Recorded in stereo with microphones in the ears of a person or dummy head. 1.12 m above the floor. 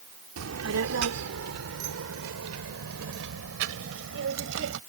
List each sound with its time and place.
0.4 s a child speaking: 85° right; by 4.8 s 65° right (ahead or behind)